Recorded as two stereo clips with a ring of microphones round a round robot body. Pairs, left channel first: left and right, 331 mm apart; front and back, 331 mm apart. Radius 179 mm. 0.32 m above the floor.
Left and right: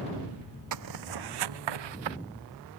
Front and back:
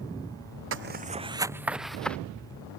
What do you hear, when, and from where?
0.7 s footsteps: 125° right; by 2.2 s 85° right